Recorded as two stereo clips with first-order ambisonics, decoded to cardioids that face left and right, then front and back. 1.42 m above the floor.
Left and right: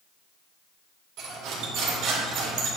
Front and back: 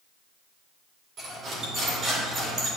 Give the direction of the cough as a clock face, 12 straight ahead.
No cough in this recording.